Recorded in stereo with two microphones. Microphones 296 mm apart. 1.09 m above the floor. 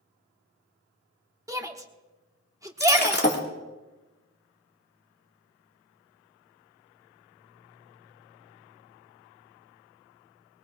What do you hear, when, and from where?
1.5 s a shout: 10° right (ahead or behind), 1.1 m
2.8 s breaking glass: 35° left (ahead or behind), 1.6 m